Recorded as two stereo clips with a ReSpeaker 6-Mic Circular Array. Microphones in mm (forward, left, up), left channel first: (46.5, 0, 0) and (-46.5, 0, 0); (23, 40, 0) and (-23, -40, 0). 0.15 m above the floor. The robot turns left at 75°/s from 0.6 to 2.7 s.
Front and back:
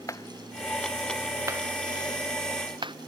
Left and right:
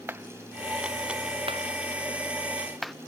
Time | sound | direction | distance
0.1 | a clap | 55° right | ?